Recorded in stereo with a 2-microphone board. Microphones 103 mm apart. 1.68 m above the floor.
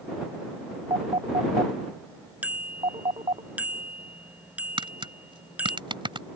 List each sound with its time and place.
0.9 s a phone ringing: 75° right (ahead or behind)
2.4 s a bicycle bell: 15° right (ahead or behind)
4.8 s tapping: 55° right (ahead or behind)